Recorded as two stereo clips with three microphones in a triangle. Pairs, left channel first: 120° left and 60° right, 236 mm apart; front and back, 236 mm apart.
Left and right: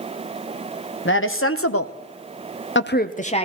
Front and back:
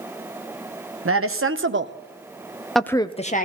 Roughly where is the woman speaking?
Behind left.